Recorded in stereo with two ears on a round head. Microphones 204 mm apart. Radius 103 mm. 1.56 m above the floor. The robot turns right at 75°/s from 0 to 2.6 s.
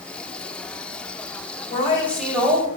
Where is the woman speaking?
145° left, 2.0 m; by 2.7 s 150° right, 2.0 m.